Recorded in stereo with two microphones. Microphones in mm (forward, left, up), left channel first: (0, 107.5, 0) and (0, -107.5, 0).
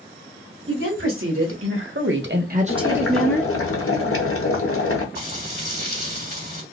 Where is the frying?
50° right (ahead or behind), 2.5 m.